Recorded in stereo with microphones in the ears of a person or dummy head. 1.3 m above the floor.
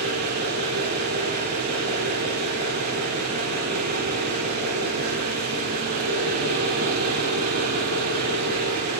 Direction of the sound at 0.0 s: 50° right (ahead or behind).